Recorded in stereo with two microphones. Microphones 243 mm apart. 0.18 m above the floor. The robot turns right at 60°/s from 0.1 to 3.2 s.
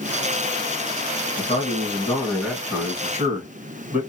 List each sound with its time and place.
1.4 s a man speaking: 20° left (ahead or behind), 1.4 m; by 4.0 s 5° right (ahead or behind), 1.4 m